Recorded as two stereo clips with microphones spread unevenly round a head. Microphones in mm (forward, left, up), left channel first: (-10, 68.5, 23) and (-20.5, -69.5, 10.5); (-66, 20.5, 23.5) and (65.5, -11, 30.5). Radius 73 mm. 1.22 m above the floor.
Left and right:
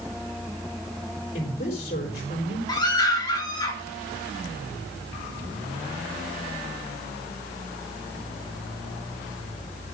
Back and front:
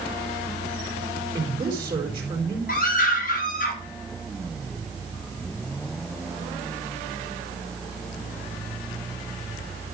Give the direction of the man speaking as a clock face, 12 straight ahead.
10 o'clock.